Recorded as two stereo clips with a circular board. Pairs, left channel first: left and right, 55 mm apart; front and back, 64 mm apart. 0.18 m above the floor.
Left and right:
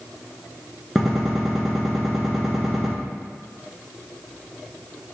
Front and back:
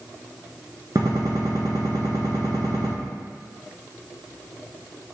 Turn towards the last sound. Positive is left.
turn(degrees=180)